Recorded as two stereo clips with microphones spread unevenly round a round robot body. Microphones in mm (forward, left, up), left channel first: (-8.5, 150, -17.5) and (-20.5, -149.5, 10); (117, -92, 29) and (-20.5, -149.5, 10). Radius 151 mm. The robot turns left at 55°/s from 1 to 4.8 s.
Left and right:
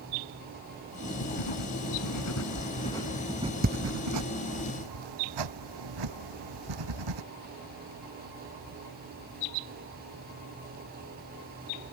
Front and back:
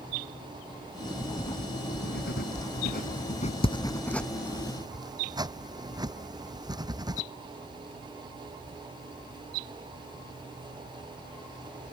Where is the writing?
105° left; by 7.2 s 95° right.